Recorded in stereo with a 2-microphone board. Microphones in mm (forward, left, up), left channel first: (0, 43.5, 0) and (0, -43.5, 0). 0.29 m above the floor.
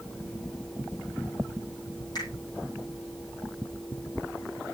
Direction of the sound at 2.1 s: 50° left (ahead or behind).